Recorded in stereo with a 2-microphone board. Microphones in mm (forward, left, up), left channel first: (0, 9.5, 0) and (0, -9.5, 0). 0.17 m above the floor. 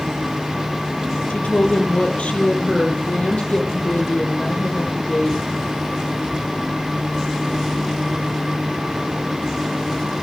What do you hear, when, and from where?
1.3 s a woman speaking: 70° left (ahead or behind), 3.5 m; by 5.4 s 75° left (ahead or behind), 6.5 m